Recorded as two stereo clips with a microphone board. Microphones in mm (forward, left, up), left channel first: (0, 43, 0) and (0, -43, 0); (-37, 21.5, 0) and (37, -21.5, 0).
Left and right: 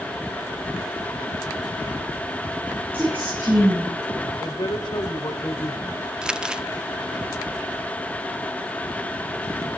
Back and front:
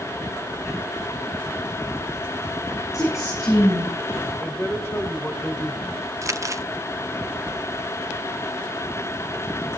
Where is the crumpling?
15° right, 0.8 m.